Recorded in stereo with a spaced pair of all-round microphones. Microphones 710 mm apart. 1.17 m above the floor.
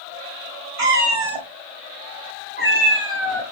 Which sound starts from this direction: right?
A cat meowing, at 0.8 s.